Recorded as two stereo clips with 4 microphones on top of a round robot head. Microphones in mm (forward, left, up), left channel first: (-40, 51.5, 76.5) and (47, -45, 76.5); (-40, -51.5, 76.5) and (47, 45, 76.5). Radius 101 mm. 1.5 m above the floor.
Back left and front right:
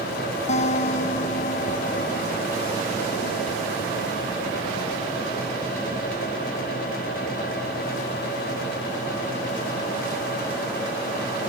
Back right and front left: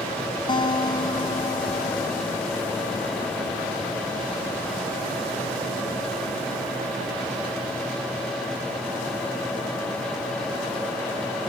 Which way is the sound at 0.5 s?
170° left.